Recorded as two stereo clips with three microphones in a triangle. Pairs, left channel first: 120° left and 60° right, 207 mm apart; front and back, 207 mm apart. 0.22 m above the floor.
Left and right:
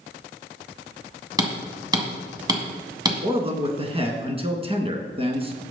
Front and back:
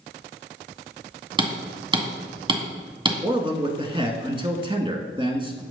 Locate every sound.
1.4 s hammering: 125° right, 1.7 m
3.2 s a man speaking: 120° right, 2.0 m